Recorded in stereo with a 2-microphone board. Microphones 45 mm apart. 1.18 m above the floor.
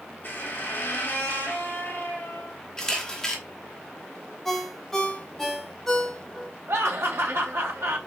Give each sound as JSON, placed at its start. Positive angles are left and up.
{"t": 0.2, "sound": "a squeak", "side_deg": 50, "distance_m": 1.3}
{"t": 2.8, "sound": "a camera shutter", "side_deg": 15, "distance_m": 1.0}
{"t": 4.5, "sound": "a ringtone", "side_deg": 5, "distance_m": 1.2}
{"t": 6.7, "sound": "laughter", "side_deg": -85, "distance_m": 2.5}